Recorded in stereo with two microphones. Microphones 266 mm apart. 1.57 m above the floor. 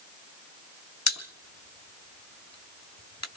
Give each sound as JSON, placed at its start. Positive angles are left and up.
{"t": 1.1, "sound": "a pop", "side_deg": 85, "distance_m": 1.2}